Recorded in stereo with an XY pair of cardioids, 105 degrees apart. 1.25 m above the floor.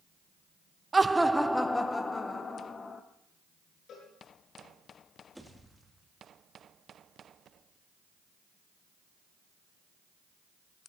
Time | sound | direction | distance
0.9 | laughter | 25° right | 0.5 m
3.9 | a cowbell | 65° left | 7.5 m
5.3 | a pop | 5° right | 2.5 m